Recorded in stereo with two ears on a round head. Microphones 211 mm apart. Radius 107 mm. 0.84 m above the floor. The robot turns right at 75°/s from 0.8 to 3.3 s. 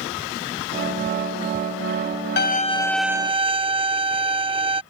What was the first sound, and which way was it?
A violin, 130° left.